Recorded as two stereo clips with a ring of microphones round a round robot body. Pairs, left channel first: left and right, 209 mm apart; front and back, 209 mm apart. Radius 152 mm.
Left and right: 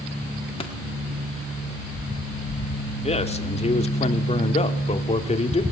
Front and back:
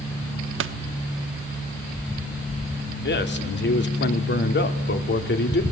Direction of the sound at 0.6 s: 160° left.